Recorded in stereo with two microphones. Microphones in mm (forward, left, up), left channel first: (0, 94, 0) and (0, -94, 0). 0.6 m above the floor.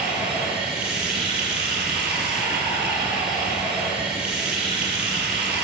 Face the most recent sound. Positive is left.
turn(degrees=-5)  # may be behind; listen again after turning